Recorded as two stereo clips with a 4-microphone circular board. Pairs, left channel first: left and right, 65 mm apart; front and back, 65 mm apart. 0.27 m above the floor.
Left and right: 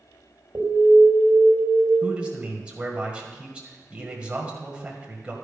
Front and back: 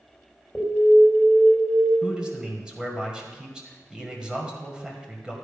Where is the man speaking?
130° right, 1.6 m.